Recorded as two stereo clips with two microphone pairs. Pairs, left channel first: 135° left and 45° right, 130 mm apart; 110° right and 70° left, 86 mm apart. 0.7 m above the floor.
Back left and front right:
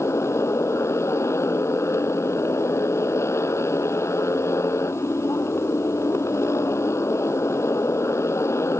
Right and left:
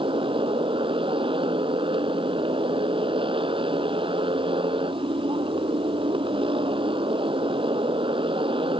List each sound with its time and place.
0.0 s a motorcycle: 65° left